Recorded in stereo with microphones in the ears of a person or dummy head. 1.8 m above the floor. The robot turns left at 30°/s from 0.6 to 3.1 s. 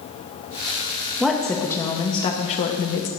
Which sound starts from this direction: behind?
A woman speaking, at 1.2 s.